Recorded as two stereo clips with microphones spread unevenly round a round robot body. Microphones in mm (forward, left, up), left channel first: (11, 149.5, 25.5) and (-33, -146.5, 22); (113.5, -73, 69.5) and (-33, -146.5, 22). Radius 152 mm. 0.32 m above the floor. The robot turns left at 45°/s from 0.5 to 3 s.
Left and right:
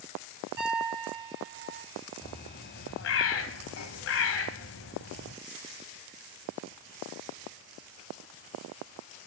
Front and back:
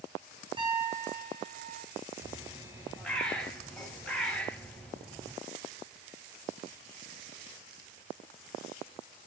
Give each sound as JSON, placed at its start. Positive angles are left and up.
{"t": 0.6, "sound": "a piano", "azimuth_deg": -90, "distance_m": 5.5}
{"t": 2.2, "sound": "a bird", "azimuth_deg": 155, "distance_m": 1.5}